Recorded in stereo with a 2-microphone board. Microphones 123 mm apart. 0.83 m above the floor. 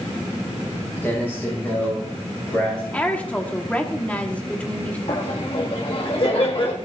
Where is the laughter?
50° left (ahead or behind), 1.2 m.